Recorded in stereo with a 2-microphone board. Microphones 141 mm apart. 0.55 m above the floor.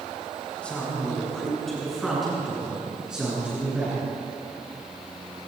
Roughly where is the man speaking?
Centre.